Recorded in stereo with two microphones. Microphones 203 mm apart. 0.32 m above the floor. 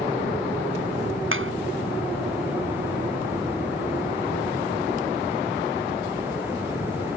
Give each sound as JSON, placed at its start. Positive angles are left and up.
{"t": 1.3, "sound": "a clap", "side_deg": -80}